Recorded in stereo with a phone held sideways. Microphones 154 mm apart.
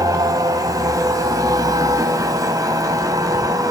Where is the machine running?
25° right (ahead or behind), 1.1 m.